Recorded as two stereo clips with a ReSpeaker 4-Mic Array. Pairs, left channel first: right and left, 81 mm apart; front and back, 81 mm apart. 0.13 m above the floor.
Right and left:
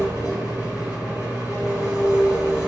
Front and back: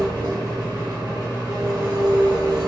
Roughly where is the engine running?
Behind left.